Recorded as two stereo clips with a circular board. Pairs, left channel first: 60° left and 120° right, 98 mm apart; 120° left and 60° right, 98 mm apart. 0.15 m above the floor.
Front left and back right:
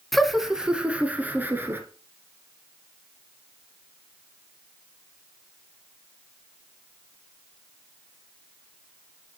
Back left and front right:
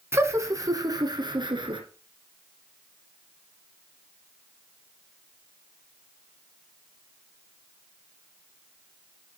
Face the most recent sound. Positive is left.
turn(degrees=-60)